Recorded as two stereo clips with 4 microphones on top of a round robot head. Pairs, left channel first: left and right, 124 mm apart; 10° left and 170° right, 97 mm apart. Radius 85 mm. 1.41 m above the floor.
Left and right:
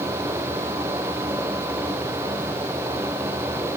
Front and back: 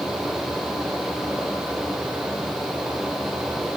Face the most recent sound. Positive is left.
No sound to turn to.